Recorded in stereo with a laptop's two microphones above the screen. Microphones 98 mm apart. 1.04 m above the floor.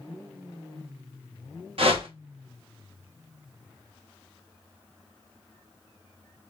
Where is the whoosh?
65° right (ahead or behind), 1.0 m.